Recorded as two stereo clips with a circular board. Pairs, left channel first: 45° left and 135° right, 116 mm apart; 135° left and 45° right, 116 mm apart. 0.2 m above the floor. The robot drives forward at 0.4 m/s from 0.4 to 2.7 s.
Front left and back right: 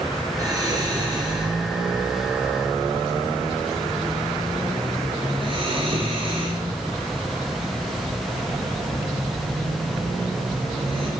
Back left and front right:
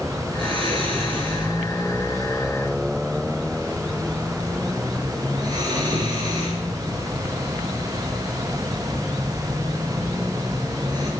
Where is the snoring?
80° right, 3 m; by 11.1 s 100° right, 3 m.